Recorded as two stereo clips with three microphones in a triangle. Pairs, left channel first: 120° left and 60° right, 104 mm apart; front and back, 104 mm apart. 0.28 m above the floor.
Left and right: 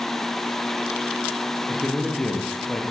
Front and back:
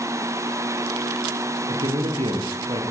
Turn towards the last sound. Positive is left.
turn(degrees=-155)